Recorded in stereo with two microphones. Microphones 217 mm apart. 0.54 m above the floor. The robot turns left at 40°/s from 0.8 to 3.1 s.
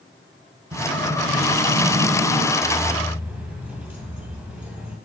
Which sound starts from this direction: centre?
Keys jangling, at 2.6 s.